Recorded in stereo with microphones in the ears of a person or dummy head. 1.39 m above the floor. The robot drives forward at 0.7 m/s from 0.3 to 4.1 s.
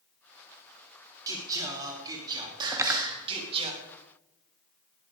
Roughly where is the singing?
Right.